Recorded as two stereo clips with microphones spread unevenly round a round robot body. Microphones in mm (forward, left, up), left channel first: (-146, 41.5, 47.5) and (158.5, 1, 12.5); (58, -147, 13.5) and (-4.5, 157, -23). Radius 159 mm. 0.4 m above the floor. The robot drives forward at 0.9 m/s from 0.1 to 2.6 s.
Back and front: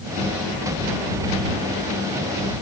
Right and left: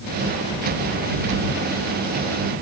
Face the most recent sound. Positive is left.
No sound to turn to.